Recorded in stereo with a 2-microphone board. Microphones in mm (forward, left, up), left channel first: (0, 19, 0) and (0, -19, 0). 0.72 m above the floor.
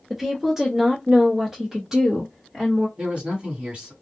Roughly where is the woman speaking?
Centre.